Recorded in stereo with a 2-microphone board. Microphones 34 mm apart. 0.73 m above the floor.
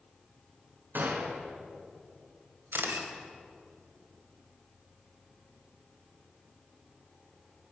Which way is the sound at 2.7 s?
90° right.